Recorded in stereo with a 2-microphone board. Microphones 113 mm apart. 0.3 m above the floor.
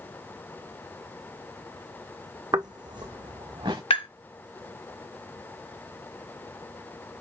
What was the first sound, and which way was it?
Footsteps, 40° right (ahead or behind).